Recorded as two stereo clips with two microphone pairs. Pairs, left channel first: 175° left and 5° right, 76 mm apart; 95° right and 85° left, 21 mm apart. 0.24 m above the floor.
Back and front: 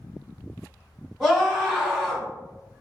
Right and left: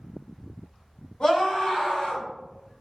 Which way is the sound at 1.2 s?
100° right.